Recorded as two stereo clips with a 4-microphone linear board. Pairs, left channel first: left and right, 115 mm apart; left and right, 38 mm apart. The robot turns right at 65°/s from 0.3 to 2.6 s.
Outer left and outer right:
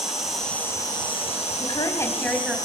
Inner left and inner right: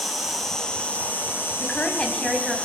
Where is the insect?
5° right, 4.5 m; by 2.6 s 145° left, 4.5 m.